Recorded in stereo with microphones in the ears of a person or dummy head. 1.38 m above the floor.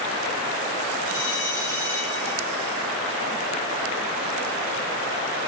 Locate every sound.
1.1 s a bell: 75° left (ahead or behind), 5 m